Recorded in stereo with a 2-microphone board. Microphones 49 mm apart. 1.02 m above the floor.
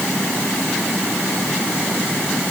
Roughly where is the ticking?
I don't hear ticking.